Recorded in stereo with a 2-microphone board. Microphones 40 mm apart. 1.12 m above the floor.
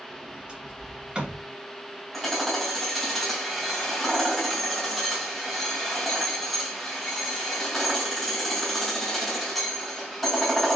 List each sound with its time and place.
0.1 s a sliding door: 25° right (ahead or behind), 1.9 m
2.1 s hammering: 5° left (ahead or behind), 2.5 m